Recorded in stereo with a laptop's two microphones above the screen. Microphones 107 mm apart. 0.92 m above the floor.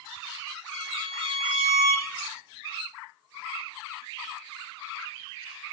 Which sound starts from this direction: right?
A violin, at 0.7 s.